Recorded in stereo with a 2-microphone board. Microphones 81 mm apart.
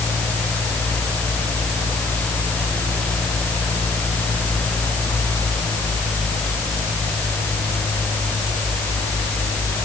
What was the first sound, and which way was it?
Only background noise.